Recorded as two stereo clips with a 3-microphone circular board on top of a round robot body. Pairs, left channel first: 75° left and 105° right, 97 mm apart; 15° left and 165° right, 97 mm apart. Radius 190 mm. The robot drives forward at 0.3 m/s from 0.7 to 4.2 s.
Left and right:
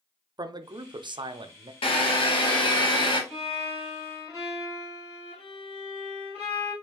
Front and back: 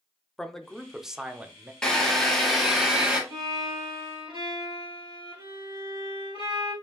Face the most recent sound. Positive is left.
turn(degrees=165)